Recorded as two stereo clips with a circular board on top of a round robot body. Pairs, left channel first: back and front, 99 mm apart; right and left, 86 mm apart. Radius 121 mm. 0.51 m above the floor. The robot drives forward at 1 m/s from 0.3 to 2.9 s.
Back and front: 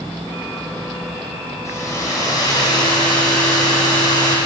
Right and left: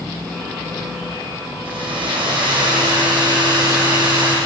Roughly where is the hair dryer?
Behind left.